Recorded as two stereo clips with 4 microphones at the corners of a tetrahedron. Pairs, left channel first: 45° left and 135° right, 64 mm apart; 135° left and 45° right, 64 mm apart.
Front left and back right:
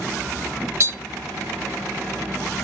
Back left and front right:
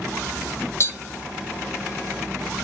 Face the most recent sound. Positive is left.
turn(degrees=-175)